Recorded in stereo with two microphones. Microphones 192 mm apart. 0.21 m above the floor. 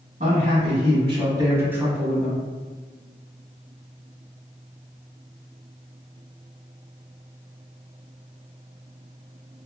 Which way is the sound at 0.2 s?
45° right (ahead or behind).